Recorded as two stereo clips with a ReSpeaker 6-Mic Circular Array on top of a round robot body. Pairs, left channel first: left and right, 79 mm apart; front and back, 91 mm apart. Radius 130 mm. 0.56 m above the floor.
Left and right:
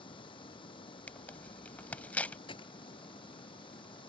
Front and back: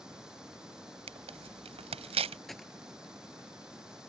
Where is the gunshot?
90° left.